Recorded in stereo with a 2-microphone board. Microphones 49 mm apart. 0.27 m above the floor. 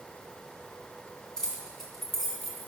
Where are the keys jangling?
10° left (ahead or behind), 2.0 m; by 2.7 s centre (ahead or behind), 2.5 m.